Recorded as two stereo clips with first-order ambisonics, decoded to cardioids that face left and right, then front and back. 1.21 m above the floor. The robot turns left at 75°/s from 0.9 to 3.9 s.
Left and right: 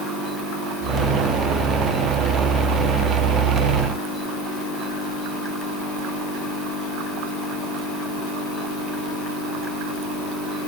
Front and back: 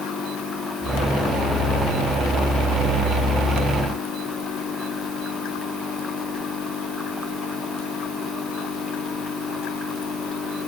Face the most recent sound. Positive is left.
No sound to turn to.